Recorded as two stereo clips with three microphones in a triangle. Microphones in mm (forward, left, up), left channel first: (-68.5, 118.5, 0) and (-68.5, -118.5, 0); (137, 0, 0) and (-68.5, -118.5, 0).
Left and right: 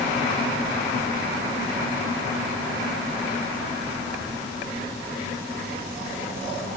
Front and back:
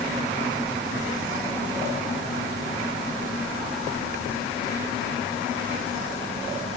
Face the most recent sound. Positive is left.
No sound to turn to.